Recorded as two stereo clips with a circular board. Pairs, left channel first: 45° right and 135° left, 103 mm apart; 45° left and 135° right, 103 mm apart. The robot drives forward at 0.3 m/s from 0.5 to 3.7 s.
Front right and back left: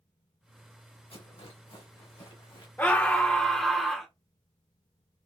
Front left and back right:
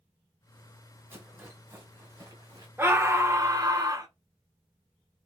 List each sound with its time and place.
1.1 s a rattle: 65° right, 1.7 m; by 2.7 s 85° right, 1.5 m
2.8 s a scream: 100° right, 0.8 m; by 4.1 s 135° right, 0.8 m